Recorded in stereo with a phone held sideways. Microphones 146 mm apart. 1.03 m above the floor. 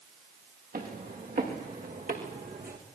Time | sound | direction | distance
0.7 | footsteps | 80° right | 7.5 m